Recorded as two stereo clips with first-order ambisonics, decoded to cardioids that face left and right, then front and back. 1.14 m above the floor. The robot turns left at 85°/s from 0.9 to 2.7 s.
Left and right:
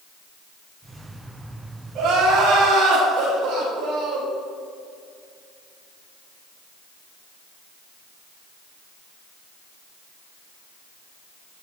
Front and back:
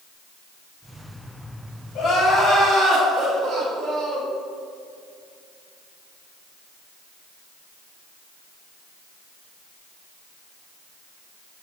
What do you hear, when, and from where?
1.9 s crying: 45° right, 1.7 m; by 4.3 s 110° right, 1.7 m